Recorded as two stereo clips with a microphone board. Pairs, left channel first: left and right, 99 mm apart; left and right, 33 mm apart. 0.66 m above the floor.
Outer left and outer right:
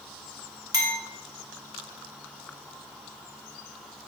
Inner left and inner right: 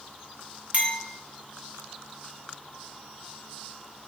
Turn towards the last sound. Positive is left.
turn(degrees=-40)  # may be behind; listen again after turning